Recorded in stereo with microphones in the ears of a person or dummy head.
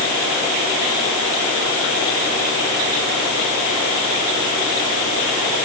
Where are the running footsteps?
No running footsteps in this recording.